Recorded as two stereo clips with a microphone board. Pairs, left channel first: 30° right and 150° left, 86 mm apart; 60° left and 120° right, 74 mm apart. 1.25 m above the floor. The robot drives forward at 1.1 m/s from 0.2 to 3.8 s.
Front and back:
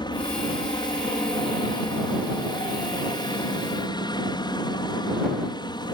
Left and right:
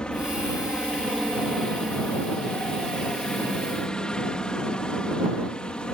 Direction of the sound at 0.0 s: 15° right.